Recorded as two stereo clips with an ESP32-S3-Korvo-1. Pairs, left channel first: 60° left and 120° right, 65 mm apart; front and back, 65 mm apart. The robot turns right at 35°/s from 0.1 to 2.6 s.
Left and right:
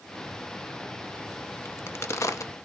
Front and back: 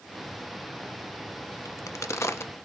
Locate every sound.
1.6 s a crack: 10° left, 0.5 m; by 2.5 s 40° left, 0.5 m